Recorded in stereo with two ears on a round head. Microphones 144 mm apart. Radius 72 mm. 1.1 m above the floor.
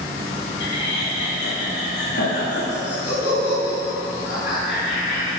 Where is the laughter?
70° left (ahead or behind), 2 m; by 5.4 s 80° left, 5 m.